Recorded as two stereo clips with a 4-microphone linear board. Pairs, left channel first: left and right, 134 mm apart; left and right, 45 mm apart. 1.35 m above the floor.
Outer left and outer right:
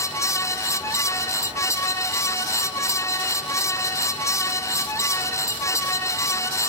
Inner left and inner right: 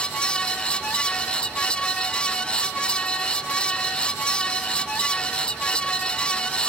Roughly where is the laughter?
I don't hear laughter.